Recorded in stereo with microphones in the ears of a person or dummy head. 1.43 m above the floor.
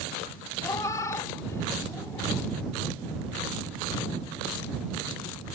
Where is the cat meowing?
20° left (ahead or behind).